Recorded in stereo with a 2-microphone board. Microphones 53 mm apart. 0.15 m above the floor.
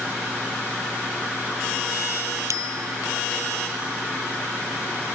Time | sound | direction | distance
2.5 | a bicycle bell | 75° right (ahead or behind) | ?